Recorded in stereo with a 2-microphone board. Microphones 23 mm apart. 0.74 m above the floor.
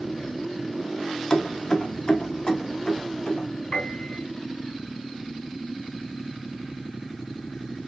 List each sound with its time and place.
1.3 s keys jangling: 35° left (ahead or behind), 0.5 m; by 3.5 s 50° left (ahead or behind), 1.6 m
3.7 s a piano: 70° left (ahead or behind), 2.5 m